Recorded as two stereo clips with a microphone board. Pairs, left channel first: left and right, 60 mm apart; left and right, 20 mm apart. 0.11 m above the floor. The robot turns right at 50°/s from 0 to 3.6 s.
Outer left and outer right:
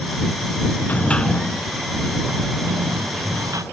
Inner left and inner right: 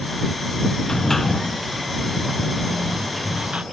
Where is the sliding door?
150° left; by 3.6 s 75° right.